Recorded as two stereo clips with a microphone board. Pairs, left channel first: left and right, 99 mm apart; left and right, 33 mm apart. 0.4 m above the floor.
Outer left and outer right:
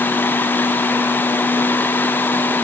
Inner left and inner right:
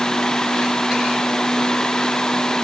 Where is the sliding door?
No sliding door in this recording.